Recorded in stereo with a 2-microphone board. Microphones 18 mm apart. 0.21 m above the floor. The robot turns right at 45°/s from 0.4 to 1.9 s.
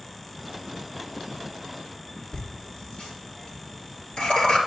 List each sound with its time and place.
2.3 s laughter: 70° left (ahead or behind), 4 m